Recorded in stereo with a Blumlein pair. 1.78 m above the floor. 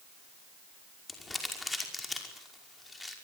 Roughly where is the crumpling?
Ahead.